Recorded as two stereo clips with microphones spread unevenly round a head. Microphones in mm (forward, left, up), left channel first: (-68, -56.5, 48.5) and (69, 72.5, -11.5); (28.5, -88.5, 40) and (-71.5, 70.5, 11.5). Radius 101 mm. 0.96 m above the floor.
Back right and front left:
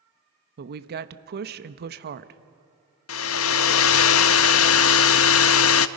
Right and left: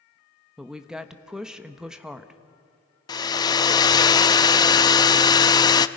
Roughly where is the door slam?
No door slam in this recording.